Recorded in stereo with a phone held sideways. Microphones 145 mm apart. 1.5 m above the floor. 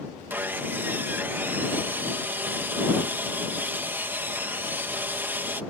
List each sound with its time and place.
0.3 s sawing: 15° right (ahead or behind)